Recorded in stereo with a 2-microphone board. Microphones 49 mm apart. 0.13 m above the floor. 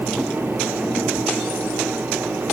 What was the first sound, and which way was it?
Only background noise.